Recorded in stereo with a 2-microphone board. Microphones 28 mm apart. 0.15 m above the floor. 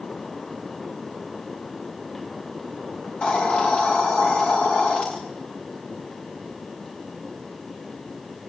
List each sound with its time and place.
3.0 s a hiss: 45° left (ahead or behind), 8.5 m